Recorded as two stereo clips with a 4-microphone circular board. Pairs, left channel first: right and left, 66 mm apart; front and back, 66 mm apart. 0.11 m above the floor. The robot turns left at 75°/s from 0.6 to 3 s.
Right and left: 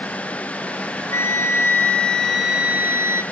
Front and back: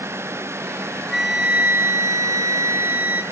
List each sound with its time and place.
1.1 s a flute: 80° right, 1.5 m; by 3.2 s 135° left, 1.5 m